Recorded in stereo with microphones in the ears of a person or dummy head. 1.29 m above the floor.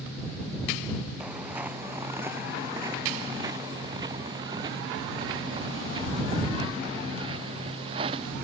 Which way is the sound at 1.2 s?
5° right (ahead or behind).